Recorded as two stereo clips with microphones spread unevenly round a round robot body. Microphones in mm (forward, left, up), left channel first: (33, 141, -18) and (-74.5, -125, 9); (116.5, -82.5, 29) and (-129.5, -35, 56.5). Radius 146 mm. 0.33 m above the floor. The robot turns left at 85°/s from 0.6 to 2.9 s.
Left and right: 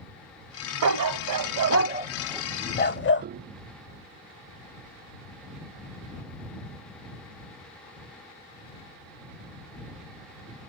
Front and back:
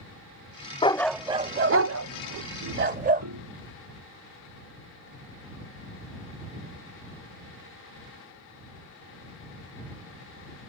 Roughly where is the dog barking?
Right.